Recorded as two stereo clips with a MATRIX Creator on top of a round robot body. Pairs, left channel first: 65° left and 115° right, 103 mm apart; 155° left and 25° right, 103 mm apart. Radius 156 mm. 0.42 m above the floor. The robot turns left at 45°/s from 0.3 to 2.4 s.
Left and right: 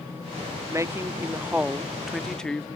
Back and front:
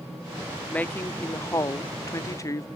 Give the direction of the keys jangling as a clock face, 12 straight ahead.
No keys jangling in this recording.